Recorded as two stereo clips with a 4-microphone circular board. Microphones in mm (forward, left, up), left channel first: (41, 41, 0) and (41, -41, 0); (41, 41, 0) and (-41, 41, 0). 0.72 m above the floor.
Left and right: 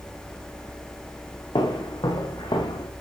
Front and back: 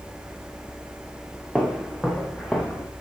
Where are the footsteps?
95° left, 3 m; by 2.9 s 85° left, 4 m.